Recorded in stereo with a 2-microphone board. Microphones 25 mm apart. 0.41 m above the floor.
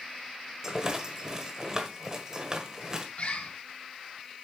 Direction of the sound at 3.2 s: 60° left (ahead or behind).